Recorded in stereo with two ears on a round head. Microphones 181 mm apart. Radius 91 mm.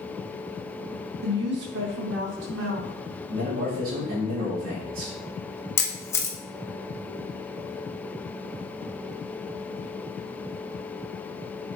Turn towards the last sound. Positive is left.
turn(degrees=15)  # may be behind; listen again after turning